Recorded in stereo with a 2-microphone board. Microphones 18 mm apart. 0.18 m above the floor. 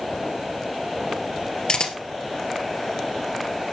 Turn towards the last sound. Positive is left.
turn(degrees=55)  # may be behind; listen again after turning